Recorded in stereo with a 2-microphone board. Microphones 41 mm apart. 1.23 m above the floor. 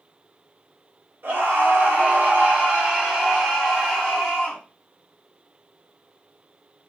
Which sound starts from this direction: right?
A scream, at 1.2 s.